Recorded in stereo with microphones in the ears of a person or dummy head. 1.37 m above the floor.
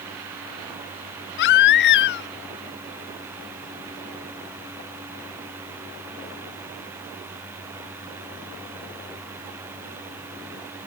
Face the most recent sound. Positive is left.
turn(degrees=60)  # may be behind; listen again after turning